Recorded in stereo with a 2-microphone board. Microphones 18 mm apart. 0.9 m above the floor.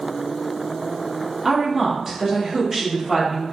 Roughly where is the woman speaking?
Centre.